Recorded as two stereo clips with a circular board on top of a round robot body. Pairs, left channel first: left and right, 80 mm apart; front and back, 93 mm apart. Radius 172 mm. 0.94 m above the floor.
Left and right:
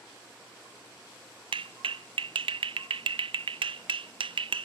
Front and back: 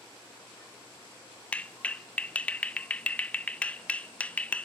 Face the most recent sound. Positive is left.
turn(degrees=-75)